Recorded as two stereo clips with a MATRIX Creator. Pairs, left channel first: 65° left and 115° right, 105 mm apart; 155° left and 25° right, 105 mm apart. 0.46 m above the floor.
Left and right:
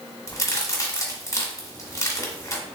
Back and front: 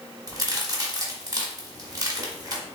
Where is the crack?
15° left, 1.3 m.